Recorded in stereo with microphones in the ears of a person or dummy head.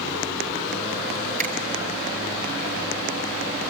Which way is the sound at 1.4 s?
45° right (ahead or behind).